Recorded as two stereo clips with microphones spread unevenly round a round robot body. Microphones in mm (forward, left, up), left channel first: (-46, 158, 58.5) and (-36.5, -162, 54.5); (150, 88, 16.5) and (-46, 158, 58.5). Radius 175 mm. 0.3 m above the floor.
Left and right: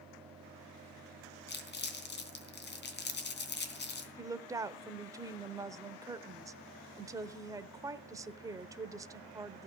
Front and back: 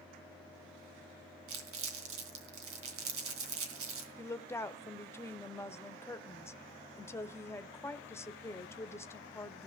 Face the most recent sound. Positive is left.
turn(degrees=-25)